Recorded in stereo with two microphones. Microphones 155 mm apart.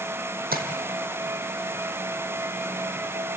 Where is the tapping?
75° right (ahead or behind), 2.5 m.